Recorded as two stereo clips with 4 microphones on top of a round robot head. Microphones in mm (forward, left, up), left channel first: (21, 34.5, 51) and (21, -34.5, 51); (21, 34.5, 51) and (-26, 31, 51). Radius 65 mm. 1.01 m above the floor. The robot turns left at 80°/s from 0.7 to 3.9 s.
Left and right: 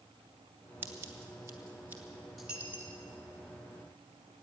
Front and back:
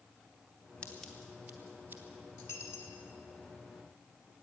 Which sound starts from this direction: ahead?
A dropped coin, at 2.4 s.